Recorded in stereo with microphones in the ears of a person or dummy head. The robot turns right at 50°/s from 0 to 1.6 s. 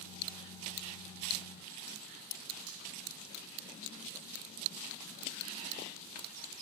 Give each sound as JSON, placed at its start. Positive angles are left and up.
{"t": 2.7, "sound": "frying", "side_deg": -80, "distance_m": 3.5}